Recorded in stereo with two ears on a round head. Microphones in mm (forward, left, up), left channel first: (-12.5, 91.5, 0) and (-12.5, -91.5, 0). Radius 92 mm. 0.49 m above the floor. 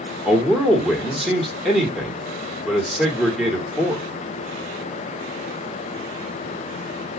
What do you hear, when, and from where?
0.2 s a man speaking: centre (ahead or behind), 1.4 m